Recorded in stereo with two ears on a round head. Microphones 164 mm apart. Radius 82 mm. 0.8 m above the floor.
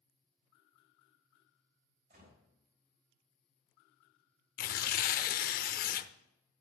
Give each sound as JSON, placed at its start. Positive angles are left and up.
{"t": 2.1, "sound": "a gunshot", "side_deg": -45, "distance_m": 5.5}
{"t": 4.6, "sound": "tearing paper", "side_deg": 50, "distance_m": 0.6}